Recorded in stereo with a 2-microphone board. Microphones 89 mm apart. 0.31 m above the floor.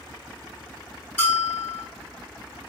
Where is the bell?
20° left (ahead or behind), 1.5 m.